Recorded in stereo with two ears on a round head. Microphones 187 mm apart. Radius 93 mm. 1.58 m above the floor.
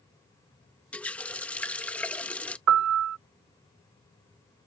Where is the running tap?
5° left (ahead or behind).